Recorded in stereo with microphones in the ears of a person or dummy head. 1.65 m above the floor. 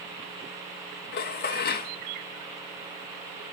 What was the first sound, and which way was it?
Dishes clattering, 50° left (ahead or behind).